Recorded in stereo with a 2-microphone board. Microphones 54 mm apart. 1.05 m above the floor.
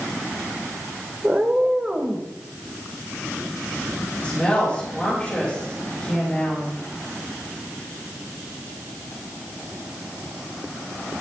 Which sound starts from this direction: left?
A woman speaking, at 4.2 s.